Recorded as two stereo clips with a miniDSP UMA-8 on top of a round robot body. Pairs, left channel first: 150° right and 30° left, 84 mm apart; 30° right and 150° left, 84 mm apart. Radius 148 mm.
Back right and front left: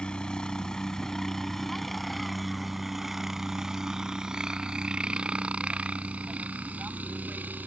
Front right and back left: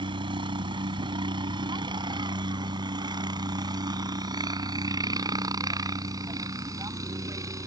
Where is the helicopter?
130° left; by 7.7 s 100° left.